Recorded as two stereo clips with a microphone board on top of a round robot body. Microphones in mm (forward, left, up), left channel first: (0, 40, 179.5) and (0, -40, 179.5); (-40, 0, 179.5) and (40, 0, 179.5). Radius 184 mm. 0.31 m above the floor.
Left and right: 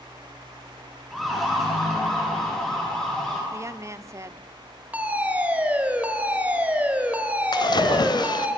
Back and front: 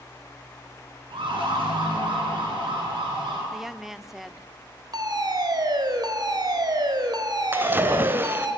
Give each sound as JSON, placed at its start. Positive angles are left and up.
{"t": 1.1, "sound": "a siren", "azimuth_deg": 0, "distance_m": 8.5}
{"t": 3.5, "sound": "a woman speaking", "azimuth_deg": -85, "distance_m": 1.2}
{"t": 4.9, "sound": "a fire alarm", "azimuth_deg": -20, "distance_m": 3.5}
{"t": 7.5, "sound": "a splash", "azimuth_deg": 65, "distance_m": 1.4}